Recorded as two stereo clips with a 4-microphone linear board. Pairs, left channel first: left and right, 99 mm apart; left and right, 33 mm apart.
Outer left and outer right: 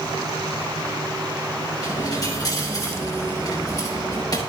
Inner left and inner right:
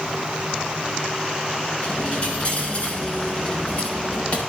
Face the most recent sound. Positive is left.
turn(degrees=40)  # may be behind; listen again after turning